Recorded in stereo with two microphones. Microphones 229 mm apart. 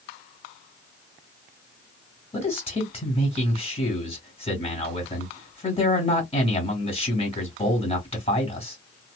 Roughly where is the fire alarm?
I don't hear a fire alarm.